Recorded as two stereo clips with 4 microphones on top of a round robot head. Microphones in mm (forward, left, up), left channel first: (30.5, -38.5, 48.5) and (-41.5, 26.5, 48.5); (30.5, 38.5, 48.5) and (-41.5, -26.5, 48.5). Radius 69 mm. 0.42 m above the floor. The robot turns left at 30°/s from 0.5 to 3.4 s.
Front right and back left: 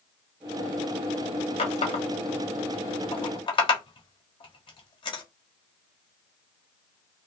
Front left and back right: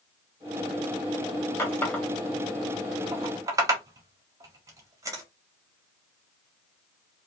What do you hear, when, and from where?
1.6 s a running tap: 25° right, 1.4 m; by 5.2 s 80° right, 1.4 m